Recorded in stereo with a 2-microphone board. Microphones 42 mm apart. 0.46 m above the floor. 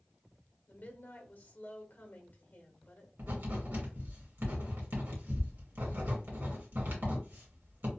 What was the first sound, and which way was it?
A woman speaking, 50° left (ahead or behind).